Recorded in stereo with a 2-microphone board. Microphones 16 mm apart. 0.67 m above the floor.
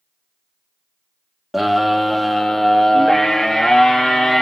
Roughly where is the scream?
Centre.